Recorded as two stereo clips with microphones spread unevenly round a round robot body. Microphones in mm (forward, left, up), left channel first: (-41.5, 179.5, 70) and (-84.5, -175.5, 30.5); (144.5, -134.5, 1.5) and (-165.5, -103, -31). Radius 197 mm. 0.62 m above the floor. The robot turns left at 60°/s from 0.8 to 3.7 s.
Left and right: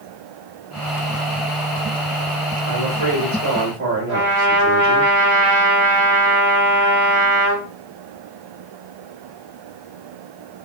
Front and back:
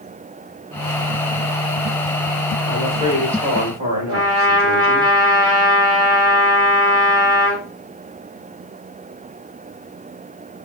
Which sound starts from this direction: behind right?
A trumpet, at 4.1 s.